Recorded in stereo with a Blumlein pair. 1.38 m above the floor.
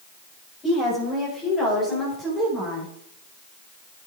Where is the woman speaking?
20° left, 6.5 m; by 2.9 s 10° left, 4.5 m.